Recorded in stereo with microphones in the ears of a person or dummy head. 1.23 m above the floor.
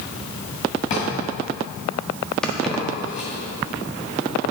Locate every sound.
0.9 s a drawer: 35° left (ahead or behind), 2 m
2.4 s keys jangling: centre (ahead or behind), 1.4 m